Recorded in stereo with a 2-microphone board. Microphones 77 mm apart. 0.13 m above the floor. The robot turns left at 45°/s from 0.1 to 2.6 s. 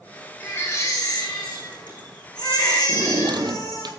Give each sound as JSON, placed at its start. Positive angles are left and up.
{"t": 0.4, "sound": "a baby crying", "azimuth_deg": 155, "distance_m": 6.0}
{"t": 2.9, "sound": "a drawer", "side_deg": -70, "distance_m": 1.7}